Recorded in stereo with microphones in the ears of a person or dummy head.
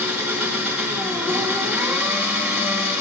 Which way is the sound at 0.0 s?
10° right (ahead or behind).